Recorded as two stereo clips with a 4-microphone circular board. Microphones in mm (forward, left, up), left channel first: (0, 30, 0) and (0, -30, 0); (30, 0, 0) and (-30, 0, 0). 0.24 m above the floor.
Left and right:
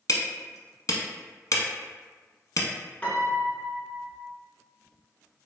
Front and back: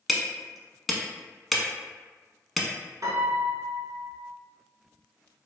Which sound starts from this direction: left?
Hammering, at 0.1 s.